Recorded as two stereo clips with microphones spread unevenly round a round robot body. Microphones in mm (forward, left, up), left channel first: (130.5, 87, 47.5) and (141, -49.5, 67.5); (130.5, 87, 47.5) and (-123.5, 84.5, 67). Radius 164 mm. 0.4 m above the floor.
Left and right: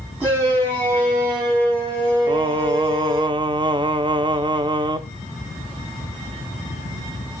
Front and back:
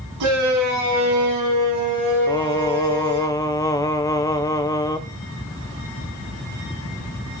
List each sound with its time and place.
0.2 s a shout: 170° right, 4 m; by 3.3 s 145° right, 7.5 m
2.3 s singing: 50° right, 0.8 m